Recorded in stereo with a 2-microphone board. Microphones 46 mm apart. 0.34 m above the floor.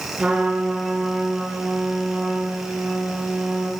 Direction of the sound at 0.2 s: 25° right (ahead or behind).